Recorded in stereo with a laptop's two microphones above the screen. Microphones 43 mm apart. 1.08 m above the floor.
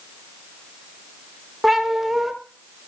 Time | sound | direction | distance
1.6 | a cat meowing | centre (ahead or behind) | 1.1 m